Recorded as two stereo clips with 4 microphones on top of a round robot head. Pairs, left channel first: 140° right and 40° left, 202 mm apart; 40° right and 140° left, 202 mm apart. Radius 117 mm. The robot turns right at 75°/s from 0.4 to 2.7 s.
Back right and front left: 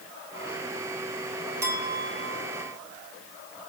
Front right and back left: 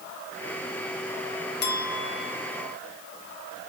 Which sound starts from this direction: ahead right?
A clink, at 1.6 s.